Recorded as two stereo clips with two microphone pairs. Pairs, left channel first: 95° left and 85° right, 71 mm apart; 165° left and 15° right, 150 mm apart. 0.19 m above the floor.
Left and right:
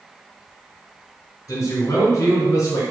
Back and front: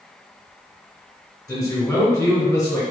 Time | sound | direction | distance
1.5 | a man speaking | 90° left | 1.7 m